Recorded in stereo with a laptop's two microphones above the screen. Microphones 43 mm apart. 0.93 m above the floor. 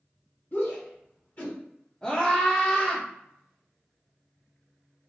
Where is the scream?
20° left (ahead or behind), 1.1 m.